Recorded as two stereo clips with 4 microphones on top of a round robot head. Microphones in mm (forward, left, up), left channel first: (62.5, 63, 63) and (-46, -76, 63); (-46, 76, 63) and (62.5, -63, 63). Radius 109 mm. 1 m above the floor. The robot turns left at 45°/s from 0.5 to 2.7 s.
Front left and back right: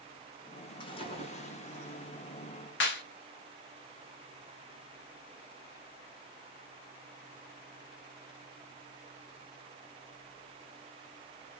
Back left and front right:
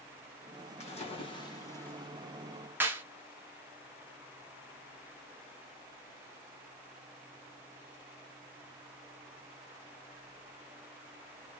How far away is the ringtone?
I don't hear a ringtone.